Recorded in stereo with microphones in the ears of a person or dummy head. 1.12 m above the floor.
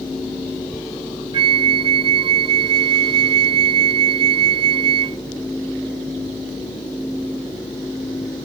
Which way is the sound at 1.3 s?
20° right (ahead or behind).